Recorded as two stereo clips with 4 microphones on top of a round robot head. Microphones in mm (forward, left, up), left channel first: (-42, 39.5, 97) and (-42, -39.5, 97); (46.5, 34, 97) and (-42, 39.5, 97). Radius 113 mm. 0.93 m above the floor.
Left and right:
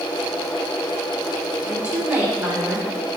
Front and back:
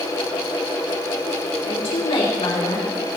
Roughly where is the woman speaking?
Ahead.